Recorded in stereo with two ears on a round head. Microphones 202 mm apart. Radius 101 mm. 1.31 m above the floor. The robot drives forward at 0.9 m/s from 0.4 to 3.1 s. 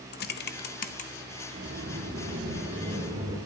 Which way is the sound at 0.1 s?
45° left (ahead or behind).